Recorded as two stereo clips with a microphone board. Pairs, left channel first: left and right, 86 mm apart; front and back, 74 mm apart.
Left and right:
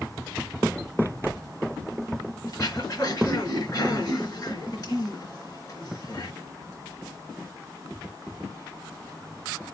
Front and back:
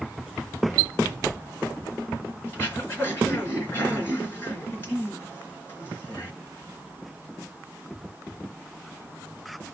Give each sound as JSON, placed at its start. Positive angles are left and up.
{"t": 2.5, "sound": "throat clearing", "azimuth_deg": 60, "distance_m": 3.0}